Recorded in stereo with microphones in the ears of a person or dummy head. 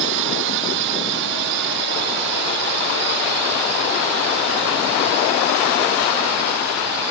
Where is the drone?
60° right (ahead or behind); by 7.1 s 50° right (ahead or behind).